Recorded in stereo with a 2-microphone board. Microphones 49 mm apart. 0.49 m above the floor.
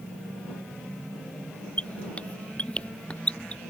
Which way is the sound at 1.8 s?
20° left (ahead or behind).